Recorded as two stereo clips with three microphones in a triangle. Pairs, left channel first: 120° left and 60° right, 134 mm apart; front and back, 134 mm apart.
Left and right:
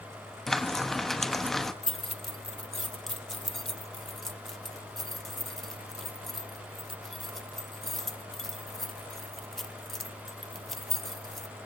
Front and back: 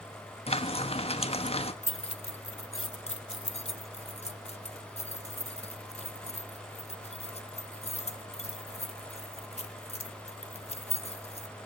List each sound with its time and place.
0.5 s frying: 35° left, 1.3 m
1.8 s keys jangling: 30° left, 0.9 m